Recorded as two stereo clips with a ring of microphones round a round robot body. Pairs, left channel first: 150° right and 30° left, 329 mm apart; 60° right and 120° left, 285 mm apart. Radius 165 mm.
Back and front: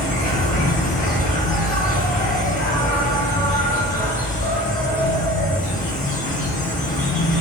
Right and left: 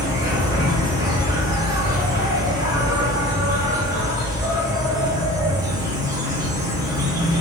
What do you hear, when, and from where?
0.0 s an insect: straight behind, 0.9 m